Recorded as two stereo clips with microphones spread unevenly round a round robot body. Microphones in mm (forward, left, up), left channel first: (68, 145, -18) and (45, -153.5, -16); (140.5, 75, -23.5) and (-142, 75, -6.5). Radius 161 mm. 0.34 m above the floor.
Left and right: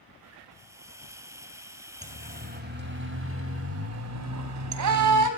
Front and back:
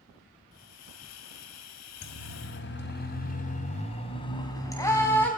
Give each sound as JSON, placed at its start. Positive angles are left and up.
{"t": 0.5, "sound": "a hiss", "azimuth_deg": -15, "distance_m": 1.9}
{"t": 2.0, "sound": "a siren", "azimuth_deg": -35, "distance_m": 2.5}